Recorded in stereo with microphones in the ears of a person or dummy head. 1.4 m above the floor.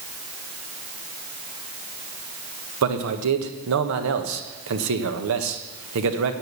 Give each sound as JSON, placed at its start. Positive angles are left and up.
{"t": 2.8, "sound": "a man speaking", "side_deg": -80, "distance_m": 1.4}